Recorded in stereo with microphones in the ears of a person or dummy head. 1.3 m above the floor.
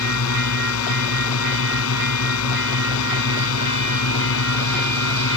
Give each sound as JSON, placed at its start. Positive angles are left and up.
{"t": 0.0, "sound": "a drone", "side_deg": 75}